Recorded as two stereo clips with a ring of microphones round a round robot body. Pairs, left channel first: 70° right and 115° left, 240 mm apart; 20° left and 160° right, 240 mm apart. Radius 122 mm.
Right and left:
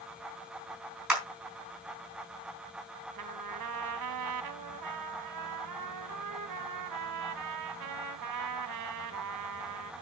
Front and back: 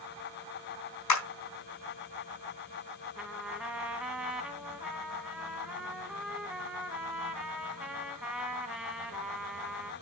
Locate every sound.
1.1 s a clap: 25° left, 4 m
3.1 s a trumpet: 115° left, 1.2 m